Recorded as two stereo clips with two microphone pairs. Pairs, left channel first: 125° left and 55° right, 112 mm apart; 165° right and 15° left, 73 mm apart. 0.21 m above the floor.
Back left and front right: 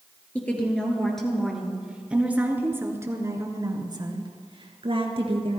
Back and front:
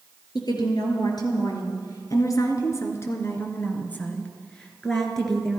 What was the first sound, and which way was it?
A woman speaking, 160° right.